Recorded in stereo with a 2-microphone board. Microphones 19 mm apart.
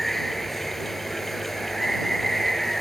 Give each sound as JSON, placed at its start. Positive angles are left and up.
{"t": 0.0, "sound": "running water", "side_deg": 15}